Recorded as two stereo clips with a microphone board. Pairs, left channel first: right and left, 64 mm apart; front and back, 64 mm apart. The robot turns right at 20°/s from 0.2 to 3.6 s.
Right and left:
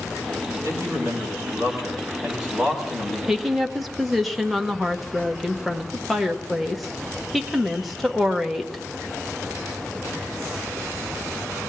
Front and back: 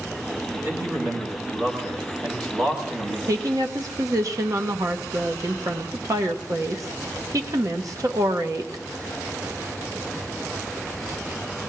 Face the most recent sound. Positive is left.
turn(degrees=180)